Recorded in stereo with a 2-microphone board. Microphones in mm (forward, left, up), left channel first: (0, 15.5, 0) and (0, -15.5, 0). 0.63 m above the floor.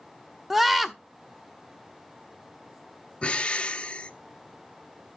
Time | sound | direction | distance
0.5 | a scream | 5° right (ahead or behind) | 0.7 m
3.2 | breathing | 30° left (ahead or behind) | 0.7 m